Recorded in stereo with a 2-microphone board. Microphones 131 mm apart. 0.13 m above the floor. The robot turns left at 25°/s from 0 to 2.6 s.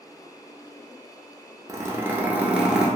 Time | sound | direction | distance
1.7 | a zipper | 25° right (ahead or behind) | 0.6 m